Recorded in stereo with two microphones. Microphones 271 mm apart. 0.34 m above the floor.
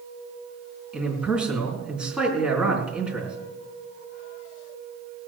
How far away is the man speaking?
About 4.5 m.